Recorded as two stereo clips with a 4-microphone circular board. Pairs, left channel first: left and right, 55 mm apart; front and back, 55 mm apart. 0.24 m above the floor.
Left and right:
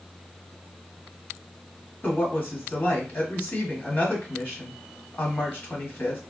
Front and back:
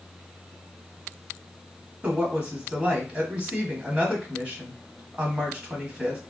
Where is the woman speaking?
120° left, 1.6 m.